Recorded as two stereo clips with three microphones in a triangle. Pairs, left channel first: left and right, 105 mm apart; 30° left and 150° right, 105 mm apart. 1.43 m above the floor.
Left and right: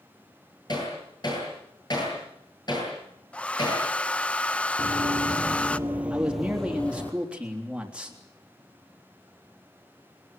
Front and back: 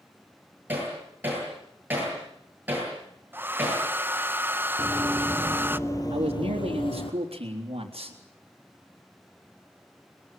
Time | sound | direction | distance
0.7 | hammering | 140° left | 9 m
3.3 | a hair dryer | 160° left | 0.5 m
4.8 | running footsteps | 65° right | 2.5 m
6.1 | a man speaking | 170° right | 3.5 m